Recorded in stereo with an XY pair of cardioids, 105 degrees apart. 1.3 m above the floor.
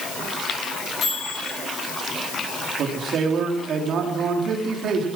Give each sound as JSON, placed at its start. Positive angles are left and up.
{"t": 1.0, "sound": "a microwave", "azimuth_deg": 55, "distance_m": 9.0}
{"t": 2.8, "sound": "a man speaking", "azimuth_deg": -65, "distance_m": 3.5}